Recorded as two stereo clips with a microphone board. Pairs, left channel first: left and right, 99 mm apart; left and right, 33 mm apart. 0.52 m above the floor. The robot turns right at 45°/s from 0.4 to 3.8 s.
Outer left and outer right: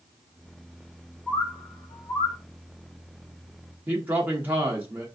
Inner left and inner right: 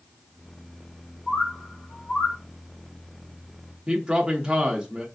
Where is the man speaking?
20° right (ahead or behind), 0.7 m.